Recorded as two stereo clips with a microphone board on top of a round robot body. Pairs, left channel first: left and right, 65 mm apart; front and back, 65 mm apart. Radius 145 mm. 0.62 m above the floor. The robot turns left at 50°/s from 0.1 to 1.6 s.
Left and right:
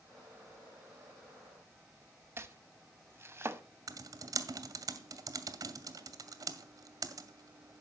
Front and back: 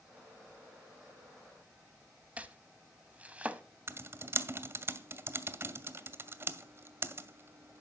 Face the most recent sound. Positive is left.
turn(degrees=-125)